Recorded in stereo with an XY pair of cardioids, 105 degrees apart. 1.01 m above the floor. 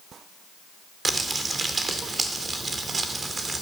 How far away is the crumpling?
About 2 m.